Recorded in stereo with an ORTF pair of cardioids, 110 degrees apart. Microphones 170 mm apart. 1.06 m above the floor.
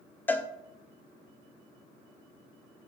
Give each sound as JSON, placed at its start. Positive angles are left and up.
{"t": 0.3, "sound": "a cowbell", "azimuth_deg": 10, "distance_m": 0.6}